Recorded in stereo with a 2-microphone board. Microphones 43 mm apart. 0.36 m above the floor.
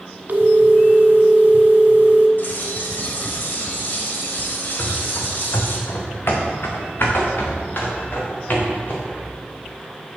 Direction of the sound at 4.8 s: 80° left.